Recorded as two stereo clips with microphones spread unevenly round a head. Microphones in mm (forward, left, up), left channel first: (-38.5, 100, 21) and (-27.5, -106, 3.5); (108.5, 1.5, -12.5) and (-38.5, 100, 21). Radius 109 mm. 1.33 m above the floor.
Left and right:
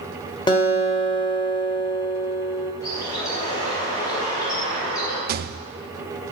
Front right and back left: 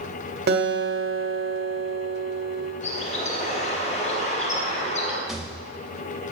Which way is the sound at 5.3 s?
130° right.